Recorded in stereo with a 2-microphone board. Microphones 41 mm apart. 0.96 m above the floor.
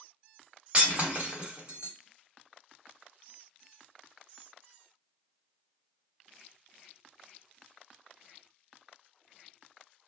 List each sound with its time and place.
0.7 s breaking glass: 30° right (ahead or behind), 1.2 m